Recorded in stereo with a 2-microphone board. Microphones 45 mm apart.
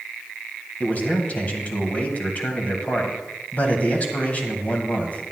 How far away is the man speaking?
About 1.7 m.